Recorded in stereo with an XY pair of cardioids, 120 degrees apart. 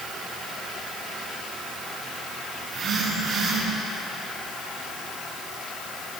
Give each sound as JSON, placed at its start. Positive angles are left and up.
{"t": 2.6, "sound": "a phone buzzing", "azimuth_deg": -55, "distance_m": 6.0}